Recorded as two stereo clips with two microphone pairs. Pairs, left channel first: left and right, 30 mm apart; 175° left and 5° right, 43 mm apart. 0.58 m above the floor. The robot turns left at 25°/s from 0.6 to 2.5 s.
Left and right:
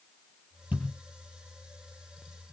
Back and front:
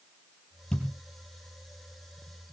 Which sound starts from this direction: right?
A thud, at 0.7 s.